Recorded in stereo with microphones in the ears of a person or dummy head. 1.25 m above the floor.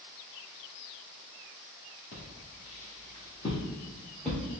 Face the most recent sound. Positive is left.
turn(degrees=0)  # may be behind; listen again after turning